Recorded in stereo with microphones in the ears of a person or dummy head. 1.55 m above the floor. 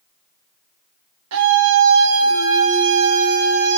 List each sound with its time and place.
1.3 s a scream: 70° right (ahead or behind), 3.5 m; by 3.8 s 50° right (ahead or behind), 3 m